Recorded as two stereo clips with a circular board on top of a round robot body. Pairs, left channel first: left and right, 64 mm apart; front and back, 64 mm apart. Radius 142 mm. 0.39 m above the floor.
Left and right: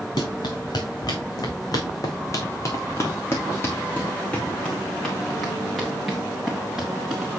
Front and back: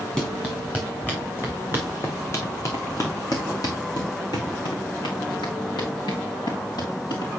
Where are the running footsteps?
75° left, 3 m; by 7.3 s 10° right, 3.5 m.